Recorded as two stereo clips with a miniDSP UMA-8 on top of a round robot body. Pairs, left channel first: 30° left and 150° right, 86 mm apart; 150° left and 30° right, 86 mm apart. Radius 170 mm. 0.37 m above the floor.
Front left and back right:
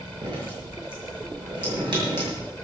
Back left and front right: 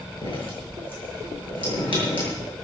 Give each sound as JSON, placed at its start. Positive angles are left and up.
{"t": 0.2, "sound": "dripping", "azimuth_deg": 175, "distance_m": 7.5}